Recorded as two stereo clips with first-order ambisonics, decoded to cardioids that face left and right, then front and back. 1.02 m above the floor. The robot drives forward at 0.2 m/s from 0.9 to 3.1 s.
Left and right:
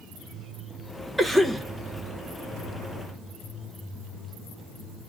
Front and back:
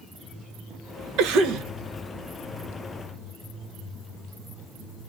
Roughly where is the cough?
Behind.